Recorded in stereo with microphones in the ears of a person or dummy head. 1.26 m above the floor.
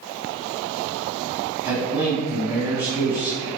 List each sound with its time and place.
1.6 s a man speaking: 10° right (ahead or behind), 1.1 m